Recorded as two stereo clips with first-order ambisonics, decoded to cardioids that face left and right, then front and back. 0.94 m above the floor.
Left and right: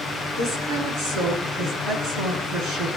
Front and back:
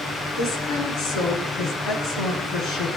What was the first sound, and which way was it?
A woman speaking, 50° right.